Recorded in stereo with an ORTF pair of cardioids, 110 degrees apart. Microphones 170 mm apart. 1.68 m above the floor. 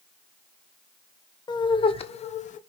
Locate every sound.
1.5 s laughter: 25° left, 1.5 m; by 2.6 s 50° left, 1.2 m